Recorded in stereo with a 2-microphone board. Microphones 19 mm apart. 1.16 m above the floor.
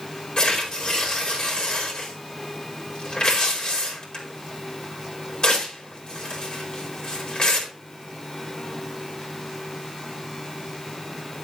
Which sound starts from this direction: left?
Tearing paper, at 0.4 s.